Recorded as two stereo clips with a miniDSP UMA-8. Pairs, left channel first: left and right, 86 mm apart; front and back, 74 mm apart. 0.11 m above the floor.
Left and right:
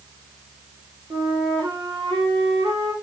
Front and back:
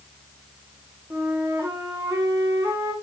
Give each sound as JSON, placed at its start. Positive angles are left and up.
{"t": 1.1, "sound": "a flute", "azimuth_deg": -120, "distance_m": 4.5}